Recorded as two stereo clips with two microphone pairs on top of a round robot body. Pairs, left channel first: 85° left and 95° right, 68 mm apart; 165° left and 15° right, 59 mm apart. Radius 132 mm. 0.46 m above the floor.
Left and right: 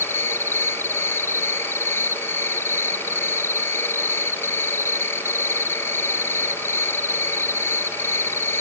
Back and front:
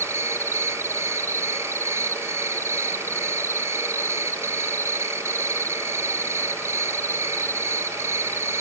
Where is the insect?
35° left.